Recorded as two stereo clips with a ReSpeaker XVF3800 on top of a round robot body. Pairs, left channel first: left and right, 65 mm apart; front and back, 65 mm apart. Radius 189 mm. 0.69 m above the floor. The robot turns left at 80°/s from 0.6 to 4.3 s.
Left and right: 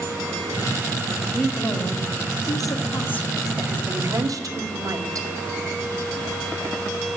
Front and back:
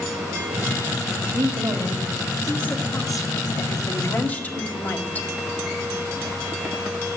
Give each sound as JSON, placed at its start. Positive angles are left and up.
{"t": 1.3, "sound": "a woman speaking", "azimuth_deg": 175, "distance_m": 2.0}